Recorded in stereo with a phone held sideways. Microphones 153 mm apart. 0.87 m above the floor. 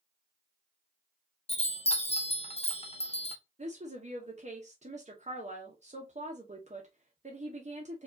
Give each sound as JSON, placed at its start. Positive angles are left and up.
{"t": 1.5, "sound": "a chime", "side_deg": 40, "distance_m": 0.6}
{"t": 3.6, "sound": "a woman speaking", "side_deg": -50, "distance_m": 0.8}